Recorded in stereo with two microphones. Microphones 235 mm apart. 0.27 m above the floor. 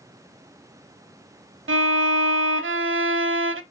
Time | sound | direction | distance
1.7 | a violin | 60° right (ahead or behind) | 0.5 m